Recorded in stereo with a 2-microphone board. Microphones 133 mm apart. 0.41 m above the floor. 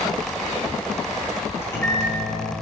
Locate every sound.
1.6 s a microwave: 20° left (ahead or behind), 0.8 m